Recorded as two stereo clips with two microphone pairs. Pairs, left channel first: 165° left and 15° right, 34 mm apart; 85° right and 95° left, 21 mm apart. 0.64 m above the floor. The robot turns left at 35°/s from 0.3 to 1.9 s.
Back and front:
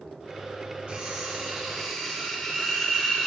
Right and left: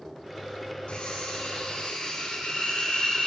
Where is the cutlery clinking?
60° right, 1.5 m; by 3.3 s 100° right, 1.5 m.